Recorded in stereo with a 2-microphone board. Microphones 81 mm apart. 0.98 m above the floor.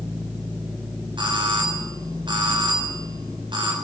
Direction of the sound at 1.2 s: 75° right (ahead or behind).